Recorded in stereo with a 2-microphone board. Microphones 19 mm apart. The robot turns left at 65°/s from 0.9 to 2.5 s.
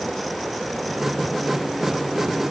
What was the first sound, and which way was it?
Only background noise.